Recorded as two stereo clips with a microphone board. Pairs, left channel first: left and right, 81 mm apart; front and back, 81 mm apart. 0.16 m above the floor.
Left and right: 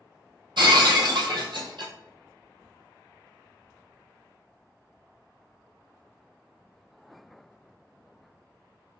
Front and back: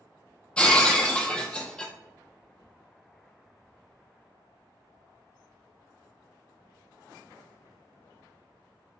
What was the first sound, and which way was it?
Breaking glass, 75° right.